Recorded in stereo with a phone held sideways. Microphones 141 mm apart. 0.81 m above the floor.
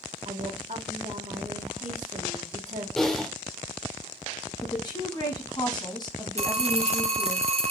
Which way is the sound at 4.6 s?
30° left (ahead or behind).